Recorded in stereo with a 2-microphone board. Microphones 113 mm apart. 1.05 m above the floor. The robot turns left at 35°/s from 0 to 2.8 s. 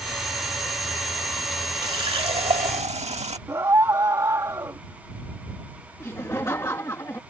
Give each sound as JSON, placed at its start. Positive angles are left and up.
{"t": 1.8, "sound": "a running tap", "azimuth_deg": -45}
{"t": 3.5, "sound": "a scream", "side_deg": -30}
{"t": 6.0, "sound": "laughter", "side_deg": 25}